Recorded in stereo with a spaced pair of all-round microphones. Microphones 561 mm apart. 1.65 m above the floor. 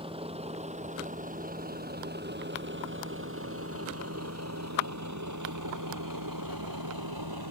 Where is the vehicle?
10° right (ahead or behind); by 7.5 s 40° right (ahead or behind).